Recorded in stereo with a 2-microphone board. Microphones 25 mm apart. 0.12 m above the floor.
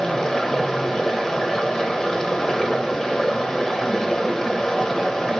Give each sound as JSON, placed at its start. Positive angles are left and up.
{"t": 0.0, "sound": "running water", "side_deg": 20, "distance_m": 0.8}